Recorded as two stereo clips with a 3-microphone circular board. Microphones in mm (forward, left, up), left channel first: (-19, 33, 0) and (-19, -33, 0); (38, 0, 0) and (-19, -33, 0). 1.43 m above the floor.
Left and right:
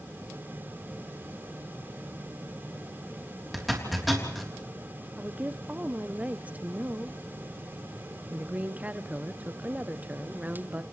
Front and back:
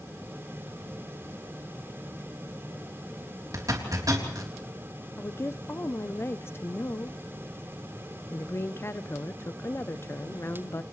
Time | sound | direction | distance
3.5 | a zipper | straight behind | 3.5 m
5.2 | a woman speaking | 25° right | 0.7 m